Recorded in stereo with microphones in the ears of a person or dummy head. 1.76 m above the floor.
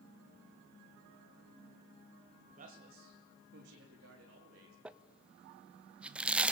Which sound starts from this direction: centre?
Crumpling, at 4.8 s.